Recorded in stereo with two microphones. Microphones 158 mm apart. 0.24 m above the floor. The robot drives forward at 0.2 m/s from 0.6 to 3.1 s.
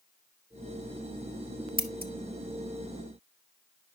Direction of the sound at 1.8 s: 70° right (ahead or behind).